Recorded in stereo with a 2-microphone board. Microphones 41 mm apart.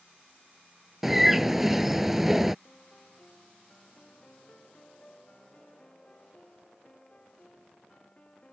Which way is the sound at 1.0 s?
5° right (ahead or behind).